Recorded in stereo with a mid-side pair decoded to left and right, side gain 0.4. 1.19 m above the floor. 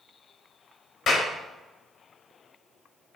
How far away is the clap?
About 4.5 m.